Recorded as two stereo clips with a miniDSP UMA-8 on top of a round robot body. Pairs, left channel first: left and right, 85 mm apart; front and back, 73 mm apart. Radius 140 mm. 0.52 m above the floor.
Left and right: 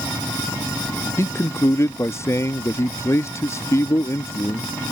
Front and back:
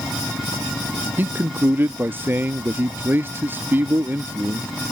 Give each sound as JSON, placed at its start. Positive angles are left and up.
{"t": 1.2, "sound": "a man speaking", "azimuth_deg": 130}